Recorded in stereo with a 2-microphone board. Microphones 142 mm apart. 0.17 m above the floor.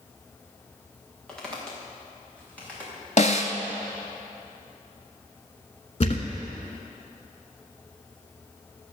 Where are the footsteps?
5° left (ahead or behind), 4 m; by 2.9 s 10° left (ahead or behind), 6 m.